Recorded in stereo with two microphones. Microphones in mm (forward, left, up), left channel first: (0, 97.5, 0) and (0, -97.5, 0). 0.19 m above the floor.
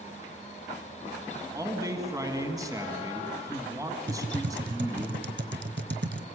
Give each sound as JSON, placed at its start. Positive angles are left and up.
{"t": 1.5, "sound": "a man speaking", "side_deg": -20, "distance_m": 1.7}
{"t": 4.1, "sound": "typing on a keyboard", "side_deg": -65, "distance_m": 0.8}